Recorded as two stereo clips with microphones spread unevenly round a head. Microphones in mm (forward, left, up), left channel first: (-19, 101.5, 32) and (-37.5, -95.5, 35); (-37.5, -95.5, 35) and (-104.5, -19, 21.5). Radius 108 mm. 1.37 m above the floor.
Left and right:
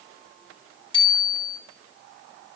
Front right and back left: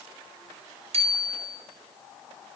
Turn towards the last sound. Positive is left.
turn(degrees=150)